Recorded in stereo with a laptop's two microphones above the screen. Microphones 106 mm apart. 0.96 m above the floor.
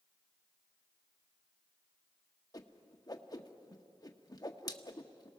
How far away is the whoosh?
About 0.8 m.